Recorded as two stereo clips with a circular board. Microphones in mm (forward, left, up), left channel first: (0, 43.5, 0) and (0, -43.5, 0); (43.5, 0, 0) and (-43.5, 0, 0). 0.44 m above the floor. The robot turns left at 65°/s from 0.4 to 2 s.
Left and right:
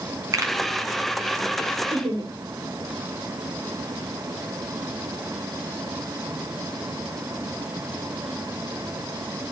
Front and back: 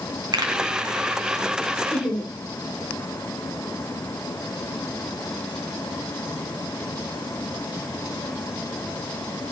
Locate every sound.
0.3 s a pop: 140° right, 3.5 m; by 0.5 s 150° right, 3.5 m
1.9 s laughter: 65° right, 6.5 m; by 2.3 s 70° right, 6.5 m